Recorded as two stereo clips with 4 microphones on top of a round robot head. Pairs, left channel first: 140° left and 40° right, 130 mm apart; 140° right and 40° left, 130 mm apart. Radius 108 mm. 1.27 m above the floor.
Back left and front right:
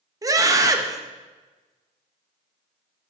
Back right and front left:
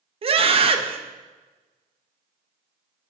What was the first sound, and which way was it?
A scream, 15° left.